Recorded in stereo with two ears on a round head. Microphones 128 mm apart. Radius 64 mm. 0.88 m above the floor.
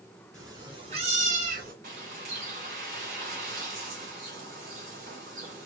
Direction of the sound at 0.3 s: 20° right (ahead or behind).